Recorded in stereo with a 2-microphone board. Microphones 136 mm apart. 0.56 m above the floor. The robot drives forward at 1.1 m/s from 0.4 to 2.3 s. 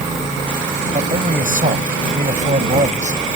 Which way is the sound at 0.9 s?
70° right (ahead or behind).